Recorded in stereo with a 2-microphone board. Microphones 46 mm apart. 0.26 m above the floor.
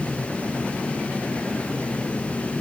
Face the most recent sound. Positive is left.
No sound to turn to.